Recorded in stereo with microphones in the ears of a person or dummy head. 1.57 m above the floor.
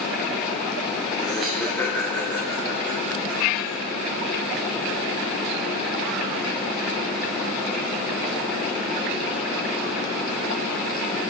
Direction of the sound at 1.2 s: 5° right (ahead or behind).